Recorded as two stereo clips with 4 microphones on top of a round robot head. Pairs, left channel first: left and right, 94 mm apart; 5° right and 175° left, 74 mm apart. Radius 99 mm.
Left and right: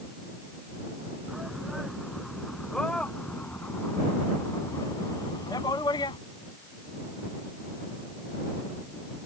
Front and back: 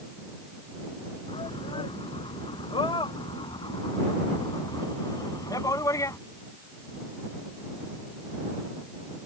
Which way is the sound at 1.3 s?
5° right.